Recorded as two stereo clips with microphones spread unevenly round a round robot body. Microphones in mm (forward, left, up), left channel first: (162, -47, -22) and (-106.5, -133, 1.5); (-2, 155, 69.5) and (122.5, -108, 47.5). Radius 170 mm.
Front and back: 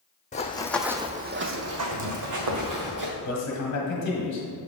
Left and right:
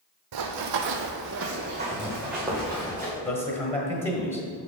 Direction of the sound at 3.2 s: 45° left.